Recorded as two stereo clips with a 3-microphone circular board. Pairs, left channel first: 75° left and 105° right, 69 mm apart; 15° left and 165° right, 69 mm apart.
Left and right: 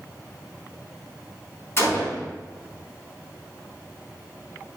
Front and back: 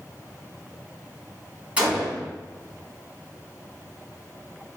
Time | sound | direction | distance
1.8 | a gunshot | 125° left | 3.5 m